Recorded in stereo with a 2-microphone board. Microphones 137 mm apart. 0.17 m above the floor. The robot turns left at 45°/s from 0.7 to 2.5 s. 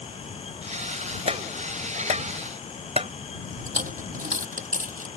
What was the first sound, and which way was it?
Tapping, 50° right (ahead or behind).